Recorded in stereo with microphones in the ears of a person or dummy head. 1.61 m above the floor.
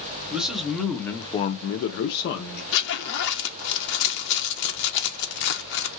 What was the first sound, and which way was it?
A man speaking, 5° right (ahead or behind).